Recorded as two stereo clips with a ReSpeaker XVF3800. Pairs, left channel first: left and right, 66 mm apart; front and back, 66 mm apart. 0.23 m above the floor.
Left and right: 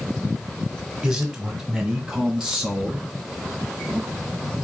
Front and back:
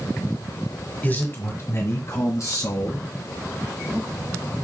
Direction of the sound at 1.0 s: 20° right.